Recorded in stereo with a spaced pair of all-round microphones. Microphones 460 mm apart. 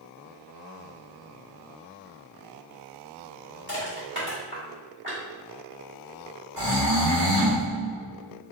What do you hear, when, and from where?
3.7 s crushing: 25° right (ahead or behind), 1.2 m
6.6 s snoring: 55° right (ahead or behind), 1.6 m